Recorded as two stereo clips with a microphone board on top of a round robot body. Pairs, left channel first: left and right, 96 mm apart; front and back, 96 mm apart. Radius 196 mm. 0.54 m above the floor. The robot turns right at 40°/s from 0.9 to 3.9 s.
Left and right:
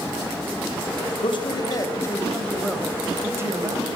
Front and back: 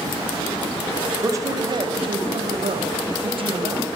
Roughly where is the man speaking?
Behind left.